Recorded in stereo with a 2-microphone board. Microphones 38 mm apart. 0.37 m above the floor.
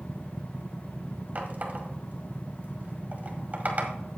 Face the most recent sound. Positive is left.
turn(degrees=-45)  # may be behind; listen again after turning